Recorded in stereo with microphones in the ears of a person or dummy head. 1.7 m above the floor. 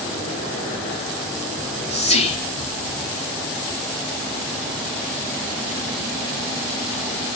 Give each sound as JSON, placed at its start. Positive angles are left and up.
{"t": 1.6, "sound": "whispering", "side_deg": 35, "distance_m": 2.5}